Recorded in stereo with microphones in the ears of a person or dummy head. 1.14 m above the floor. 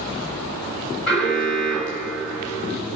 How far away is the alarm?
About 8 m.